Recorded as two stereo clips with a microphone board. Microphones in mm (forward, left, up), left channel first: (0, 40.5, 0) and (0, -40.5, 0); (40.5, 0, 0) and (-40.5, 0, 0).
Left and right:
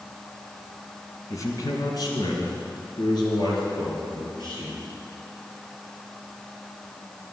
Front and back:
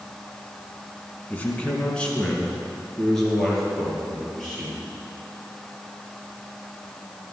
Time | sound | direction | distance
1.3 | a man speaking | 65° left | 1.9 m